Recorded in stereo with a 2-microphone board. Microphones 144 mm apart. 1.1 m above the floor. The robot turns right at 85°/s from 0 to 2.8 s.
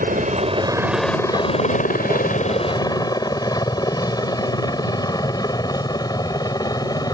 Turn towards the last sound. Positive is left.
turn(degrees=25)  # may be behind; listen again after turning